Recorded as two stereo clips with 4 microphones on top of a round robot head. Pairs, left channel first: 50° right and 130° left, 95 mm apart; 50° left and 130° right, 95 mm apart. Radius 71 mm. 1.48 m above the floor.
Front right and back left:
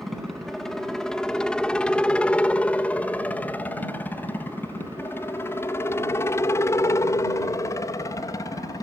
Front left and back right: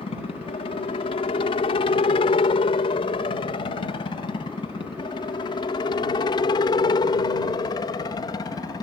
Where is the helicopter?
40° left; by 8.8 s straight ahead.